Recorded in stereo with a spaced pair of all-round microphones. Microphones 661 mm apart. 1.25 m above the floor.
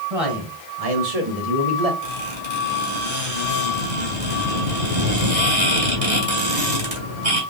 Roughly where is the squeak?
Right.